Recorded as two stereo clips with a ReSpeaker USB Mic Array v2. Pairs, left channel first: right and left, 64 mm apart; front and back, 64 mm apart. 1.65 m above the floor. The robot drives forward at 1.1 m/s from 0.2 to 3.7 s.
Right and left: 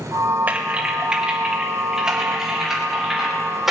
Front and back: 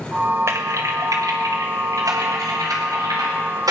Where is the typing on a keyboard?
150° left, 1.0 m; by 3.7 s 175° left, 4.5 m.